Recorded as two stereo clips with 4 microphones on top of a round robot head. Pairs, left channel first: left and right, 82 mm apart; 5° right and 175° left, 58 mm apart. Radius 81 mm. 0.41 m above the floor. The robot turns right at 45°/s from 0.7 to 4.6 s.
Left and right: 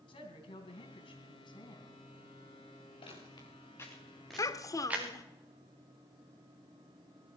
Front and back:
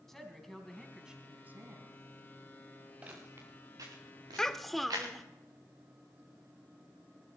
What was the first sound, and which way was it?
A woman speaking, 75° left.